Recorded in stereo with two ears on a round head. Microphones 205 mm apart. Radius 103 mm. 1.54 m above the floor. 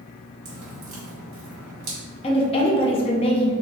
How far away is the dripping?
About 1.7 m.